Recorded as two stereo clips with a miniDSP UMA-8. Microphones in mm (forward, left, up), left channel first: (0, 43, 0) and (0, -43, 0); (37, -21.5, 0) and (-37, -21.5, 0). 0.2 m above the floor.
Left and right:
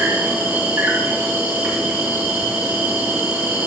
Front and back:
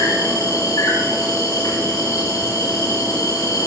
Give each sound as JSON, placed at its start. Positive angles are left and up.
{"t": 0.0, "sound": "an insect", "azimuth_deg": -15, "distance_m": 6.0}